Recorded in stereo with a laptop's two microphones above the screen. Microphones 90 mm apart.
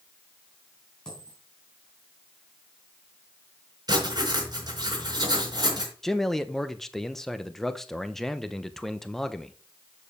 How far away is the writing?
About 4 m.